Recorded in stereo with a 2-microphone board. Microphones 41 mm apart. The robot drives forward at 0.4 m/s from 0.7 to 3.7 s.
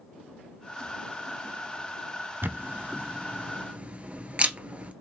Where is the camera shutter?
60° right (ahead or behind), 0.6 m; by 4.9 s 35° right (ahead or behind), 0.9 m.